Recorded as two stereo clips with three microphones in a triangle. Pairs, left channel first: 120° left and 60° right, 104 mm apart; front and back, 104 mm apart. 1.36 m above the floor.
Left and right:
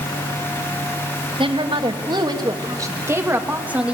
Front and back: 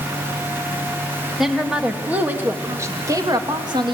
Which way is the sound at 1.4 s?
90° right.